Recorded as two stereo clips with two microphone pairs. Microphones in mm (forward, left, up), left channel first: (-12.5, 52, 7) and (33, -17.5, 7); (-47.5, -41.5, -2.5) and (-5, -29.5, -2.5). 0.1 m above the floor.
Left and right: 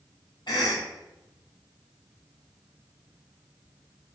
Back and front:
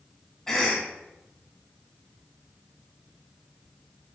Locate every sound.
0.5 s a cough: 115° left, 3.5 m